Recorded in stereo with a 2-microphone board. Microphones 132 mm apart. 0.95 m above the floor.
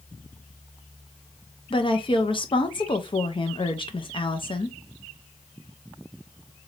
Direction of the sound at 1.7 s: 40° left (ahead or behind).